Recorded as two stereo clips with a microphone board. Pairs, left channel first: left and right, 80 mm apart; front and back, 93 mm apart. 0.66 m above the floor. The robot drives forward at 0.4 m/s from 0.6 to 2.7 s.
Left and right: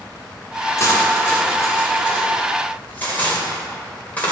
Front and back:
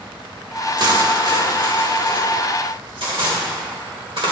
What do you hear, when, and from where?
0.8 s cutlery clinking: 140° left, 1.1 m; by 4.3 s 160° left, 1.7 m